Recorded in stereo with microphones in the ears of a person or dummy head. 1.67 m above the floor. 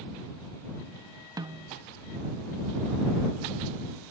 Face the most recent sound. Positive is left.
turn(degrees=-15)  # may be behind; listen again after turning